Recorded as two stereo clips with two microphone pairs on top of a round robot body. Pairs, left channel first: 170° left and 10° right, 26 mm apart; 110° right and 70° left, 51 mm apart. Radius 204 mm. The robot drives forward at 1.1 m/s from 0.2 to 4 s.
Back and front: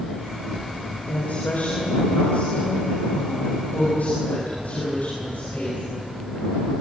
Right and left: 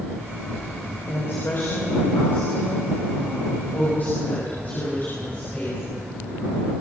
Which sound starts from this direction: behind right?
A woman speaking, at 1.1 s.